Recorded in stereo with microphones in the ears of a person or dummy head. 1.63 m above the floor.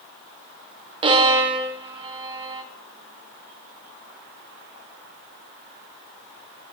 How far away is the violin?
About 0.6 m.